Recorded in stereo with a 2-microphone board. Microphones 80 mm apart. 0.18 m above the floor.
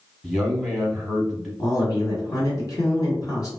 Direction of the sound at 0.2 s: Centre (ahead or behind).